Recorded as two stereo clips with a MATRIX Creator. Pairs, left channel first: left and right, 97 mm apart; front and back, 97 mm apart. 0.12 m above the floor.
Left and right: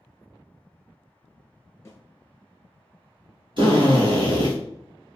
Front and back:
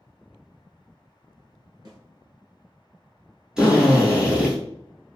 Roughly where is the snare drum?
Behind left.